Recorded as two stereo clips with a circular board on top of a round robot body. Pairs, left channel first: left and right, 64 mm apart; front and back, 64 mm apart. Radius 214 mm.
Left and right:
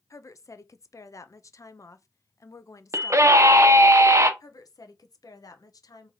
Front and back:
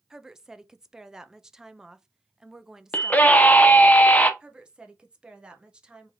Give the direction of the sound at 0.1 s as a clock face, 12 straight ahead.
9 o'clock.